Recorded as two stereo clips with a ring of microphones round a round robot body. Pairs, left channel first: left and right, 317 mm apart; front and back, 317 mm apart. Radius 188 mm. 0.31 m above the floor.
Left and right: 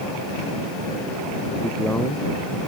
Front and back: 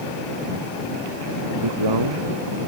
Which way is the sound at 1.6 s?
Straight behind.